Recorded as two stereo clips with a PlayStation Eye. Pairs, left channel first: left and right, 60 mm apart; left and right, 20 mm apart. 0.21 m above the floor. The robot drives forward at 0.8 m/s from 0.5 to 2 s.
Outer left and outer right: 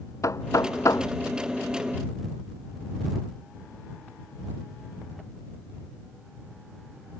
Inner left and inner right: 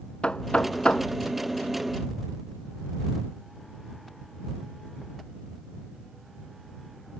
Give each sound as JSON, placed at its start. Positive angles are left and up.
{"t": 0.2, "sound": "knocking", "side_deg": 60}